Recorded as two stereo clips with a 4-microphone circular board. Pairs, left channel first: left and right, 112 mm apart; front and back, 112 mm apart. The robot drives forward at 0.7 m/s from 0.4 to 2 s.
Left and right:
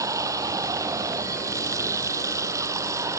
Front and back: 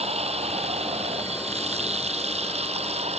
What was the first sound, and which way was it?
Running water, 150° right.